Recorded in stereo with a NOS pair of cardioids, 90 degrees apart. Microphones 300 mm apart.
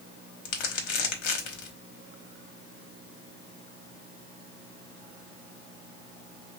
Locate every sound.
0.5 s crumpling: 65° left, 1.0 m